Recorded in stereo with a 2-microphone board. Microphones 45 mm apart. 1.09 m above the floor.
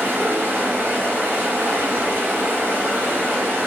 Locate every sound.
0.0 s running water: 55° right (ahead or behind), 1.4 m